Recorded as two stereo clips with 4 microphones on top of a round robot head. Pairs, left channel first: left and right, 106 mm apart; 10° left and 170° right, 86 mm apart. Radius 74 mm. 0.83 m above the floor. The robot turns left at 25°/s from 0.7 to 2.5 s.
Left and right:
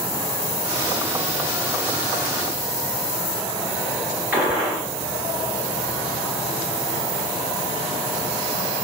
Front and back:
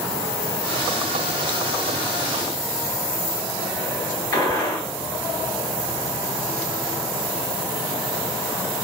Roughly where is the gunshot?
Ahead right.